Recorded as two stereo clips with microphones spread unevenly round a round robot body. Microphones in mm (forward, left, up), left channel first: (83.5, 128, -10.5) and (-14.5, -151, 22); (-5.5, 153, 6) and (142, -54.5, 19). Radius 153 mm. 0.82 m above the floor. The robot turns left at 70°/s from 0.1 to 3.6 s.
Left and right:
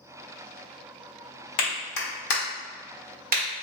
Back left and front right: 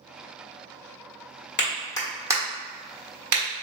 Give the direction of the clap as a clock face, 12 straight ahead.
9 o'clock.